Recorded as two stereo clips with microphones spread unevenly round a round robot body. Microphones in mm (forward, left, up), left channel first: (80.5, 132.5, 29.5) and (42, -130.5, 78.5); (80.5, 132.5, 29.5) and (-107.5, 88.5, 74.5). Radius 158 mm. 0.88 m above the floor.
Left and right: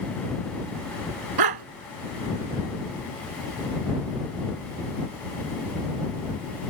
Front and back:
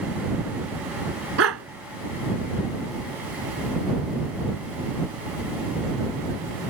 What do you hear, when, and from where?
1.4 s a dog barking: 120° right